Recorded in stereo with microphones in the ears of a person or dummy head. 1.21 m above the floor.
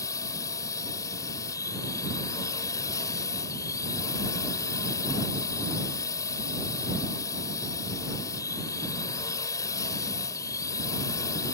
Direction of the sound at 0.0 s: 15° left (ahead or behind).